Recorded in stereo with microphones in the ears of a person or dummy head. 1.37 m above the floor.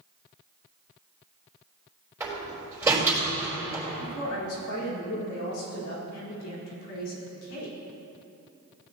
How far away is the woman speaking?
About 4 m.